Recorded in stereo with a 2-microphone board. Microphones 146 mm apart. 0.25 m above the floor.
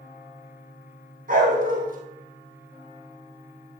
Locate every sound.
1.3 s a dog barking: 80° right, 2.5 m